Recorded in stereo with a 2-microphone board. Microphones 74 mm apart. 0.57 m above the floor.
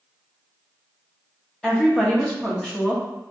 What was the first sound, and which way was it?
A woman speaking, 10° left (ahead or behind).